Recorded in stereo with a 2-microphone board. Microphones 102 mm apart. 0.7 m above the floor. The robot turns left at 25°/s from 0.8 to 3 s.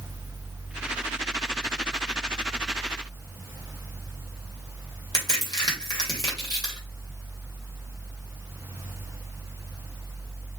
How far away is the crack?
About 2.5 m.